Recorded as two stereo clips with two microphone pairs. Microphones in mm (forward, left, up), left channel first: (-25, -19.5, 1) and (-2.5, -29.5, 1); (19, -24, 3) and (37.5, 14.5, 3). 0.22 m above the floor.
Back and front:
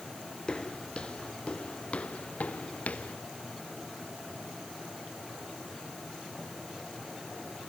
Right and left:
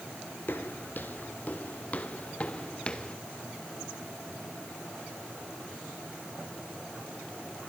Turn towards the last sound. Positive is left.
turn(degrees=175)